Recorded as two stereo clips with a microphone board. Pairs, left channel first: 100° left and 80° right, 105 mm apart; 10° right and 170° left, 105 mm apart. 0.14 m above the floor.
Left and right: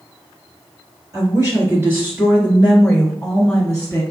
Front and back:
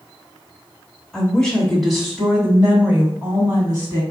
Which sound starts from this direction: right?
A woman speaking, at 1.1 s.